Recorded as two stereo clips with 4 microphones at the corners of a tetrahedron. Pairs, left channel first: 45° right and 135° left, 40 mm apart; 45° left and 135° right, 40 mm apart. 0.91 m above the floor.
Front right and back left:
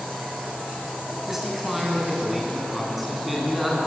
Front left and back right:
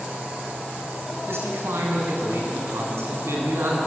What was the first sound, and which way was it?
A man speaking, 140° right.